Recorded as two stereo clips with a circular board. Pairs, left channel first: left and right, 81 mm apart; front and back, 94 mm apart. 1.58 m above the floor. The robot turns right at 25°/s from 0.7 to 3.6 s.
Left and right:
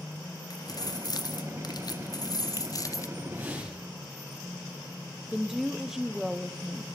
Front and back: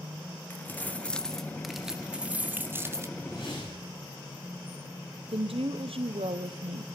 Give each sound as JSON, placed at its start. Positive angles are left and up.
{"t": 0.5, "sound": "keys jangling", "azimuth_deg": 65, "distance_m": 1.2}
{"t": 3.2, "sound": "a whoosh", "azimuth_deg": -25, "distance_m": 9.0}
{"t": 5.3, "sound": "a woman speaking", "azimuth_deg": -175, "distance_m": 0.8}